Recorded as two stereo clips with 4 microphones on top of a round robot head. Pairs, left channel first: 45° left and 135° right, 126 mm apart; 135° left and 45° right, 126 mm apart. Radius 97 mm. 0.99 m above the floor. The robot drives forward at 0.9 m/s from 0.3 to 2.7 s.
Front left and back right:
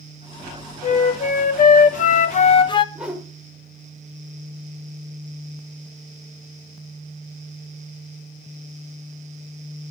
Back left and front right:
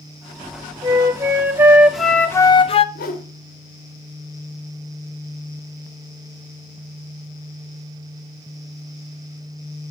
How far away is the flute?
About 1.8 m.